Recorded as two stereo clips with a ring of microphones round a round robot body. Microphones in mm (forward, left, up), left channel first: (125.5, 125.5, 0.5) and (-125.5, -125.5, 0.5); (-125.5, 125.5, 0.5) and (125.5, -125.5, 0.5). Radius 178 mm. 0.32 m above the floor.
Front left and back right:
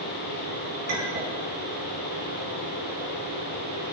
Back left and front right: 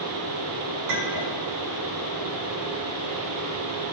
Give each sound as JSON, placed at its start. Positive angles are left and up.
{"t": 0.9, "sound": "a clink", "azimuth_deg": -75, "distance_m": 2.5}